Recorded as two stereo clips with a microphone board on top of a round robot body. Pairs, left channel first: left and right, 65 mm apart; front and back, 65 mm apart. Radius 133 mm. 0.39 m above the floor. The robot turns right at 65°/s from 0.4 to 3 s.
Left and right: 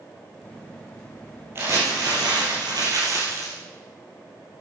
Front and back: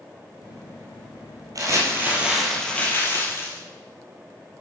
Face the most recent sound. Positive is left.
turn(degrees=-55)